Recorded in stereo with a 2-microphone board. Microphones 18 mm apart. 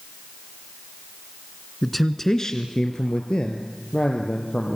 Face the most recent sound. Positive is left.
turn(degrees=65)  # may be behind; listen again after turning